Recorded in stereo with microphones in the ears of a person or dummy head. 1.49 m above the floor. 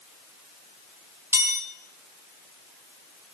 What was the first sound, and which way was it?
A chime, 10° right (ahead or behind).